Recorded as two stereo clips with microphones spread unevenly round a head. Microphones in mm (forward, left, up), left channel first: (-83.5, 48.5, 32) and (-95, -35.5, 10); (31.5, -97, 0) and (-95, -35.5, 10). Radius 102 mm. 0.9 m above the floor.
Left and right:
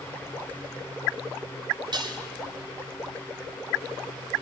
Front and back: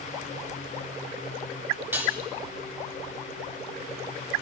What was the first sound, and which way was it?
Dishes clattering, 130° right.